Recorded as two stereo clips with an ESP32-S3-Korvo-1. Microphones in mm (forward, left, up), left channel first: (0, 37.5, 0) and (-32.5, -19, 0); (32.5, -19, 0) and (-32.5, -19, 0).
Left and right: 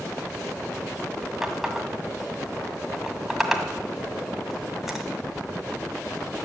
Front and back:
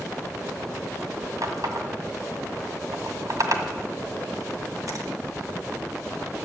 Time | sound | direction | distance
1.4 | a running tap | 155° left | 2.0 m